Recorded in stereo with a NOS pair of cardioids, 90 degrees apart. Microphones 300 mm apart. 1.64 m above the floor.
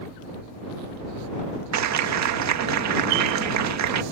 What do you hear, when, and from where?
1.7 s a clap: 65° right